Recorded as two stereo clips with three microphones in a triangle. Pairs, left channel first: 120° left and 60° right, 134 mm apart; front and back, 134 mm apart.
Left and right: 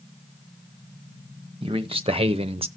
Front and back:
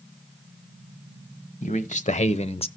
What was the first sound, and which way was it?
A man speaking, 15° right.